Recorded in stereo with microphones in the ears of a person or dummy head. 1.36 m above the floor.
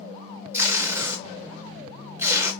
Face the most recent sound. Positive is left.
turn(degrees=-10)  # may be behind; listen again after turning